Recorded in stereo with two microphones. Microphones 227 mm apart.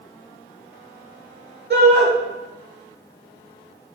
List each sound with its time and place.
1.7 s a shout: 50° right (ahead or behind), 3.5 m